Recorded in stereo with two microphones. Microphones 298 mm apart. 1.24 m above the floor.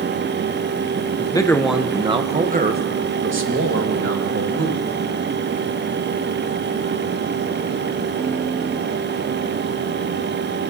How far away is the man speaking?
About 0.7 m.